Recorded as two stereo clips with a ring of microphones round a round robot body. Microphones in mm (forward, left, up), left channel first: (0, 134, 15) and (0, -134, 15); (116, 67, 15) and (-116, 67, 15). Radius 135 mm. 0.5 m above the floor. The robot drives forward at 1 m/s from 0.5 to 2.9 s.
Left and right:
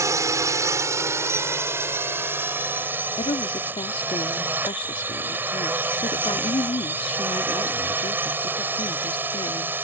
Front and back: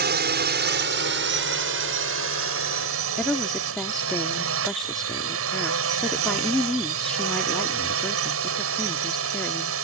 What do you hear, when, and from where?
0.0 s a drone: 165° right; by 9.8 s 170° right
3.2 s a woman speaking: 85° left